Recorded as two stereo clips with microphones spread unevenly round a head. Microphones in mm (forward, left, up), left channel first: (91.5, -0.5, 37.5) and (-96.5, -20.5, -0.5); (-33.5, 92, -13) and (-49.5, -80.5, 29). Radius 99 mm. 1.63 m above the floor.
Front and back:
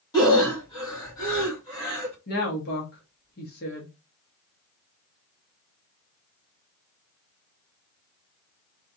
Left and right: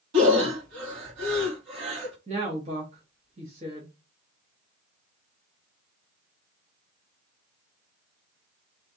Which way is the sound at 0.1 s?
65° right.